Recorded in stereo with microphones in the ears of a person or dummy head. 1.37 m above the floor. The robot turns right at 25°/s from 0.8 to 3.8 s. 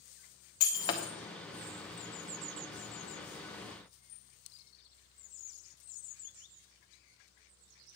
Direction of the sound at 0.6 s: 25° left (ahead or behind).